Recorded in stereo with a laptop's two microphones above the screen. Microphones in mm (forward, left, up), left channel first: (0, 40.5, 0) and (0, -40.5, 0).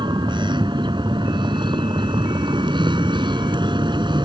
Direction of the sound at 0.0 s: 75° right (ahead or behind).